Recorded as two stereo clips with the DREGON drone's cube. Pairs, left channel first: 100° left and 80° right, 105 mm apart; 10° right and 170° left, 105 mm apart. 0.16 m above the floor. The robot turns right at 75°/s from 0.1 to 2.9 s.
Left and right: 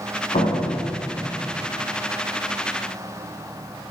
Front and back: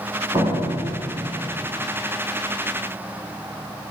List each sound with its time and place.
0.3 s a door slam: 120° left, 7.5 m; by 1.8 s 130° right, 7.5 m